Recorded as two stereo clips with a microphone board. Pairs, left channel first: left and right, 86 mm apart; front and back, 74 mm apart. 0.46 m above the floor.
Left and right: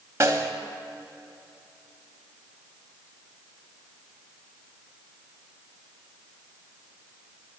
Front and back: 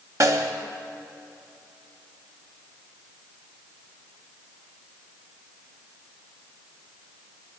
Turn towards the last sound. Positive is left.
turn(degrees=-140)